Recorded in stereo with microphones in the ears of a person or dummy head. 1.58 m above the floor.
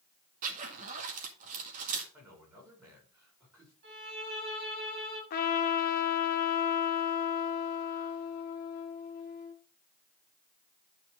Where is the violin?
50° right (ahead or behind), 4.5 m.